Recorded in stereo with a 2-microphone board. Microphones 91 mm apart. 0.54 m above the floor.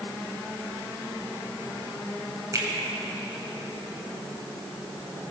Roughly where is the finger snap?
Right.